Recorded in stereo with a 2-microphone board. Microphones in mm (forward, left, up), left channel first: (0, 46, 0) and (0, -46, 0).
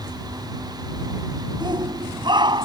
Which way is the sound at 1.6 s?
50° right (ahead or behind).